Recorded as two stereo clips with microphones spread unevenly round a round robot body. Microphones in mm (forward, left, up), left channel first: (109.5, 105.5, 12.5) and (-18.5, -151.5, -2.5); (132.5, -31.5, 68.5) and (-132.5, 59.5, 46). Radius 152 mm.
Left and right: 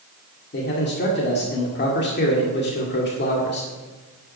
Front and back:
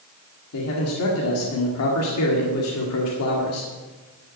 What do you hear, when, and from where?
0.5 s a man speaking: 10° left, 2 m